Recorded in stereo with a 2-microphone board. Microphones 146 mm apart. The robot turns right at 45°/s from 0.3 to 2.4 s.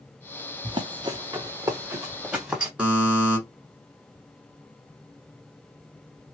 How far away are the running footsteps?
About 0.9 m.